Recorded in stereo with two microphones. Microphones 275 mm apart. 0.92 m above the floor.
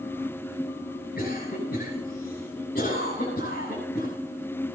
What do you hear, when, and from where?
1.2 s a cough: 35° left (ahead or behind), 7 m